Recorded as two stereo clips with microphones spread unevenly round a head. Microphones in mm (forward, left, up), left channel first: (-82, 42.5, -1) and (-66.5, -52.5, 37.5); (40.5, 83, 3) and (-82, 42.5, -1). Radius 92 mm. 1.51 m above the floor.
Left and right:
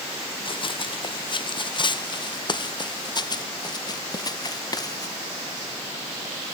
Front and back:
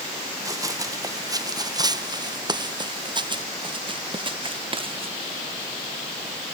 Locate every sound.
0.5 s running footsteps: 135° left; by 5.1 s 155° left